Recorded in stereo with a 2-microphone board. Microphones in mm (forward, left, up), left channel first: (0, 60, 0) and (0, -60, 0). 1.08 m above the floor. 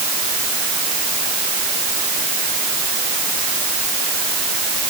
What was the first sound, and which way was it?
Only background noise.